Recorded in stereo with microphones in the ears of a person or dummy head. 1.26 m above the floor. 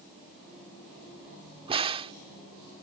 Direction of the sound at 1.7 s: 30° right (ahead or behind).